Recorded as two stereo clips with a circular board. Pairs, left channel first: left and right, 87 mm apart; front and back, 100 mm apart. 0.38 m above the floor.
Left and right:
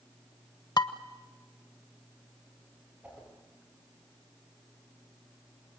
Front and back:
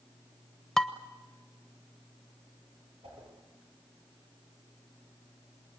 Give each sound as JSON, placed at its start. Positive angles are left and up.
{"t": 0.8, "sound": "dishes clattering", "azimuth_deg": 85, "distance_m": 1.0}
{"t": 3.0, "sound": "a whoosh", "azimuth_deg": -165, "distance_m": 9.0}